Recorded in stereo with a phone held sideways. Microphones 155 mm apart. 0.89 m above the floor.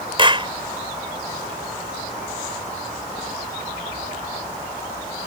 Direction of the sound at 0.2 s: 35° right (ahead or behind).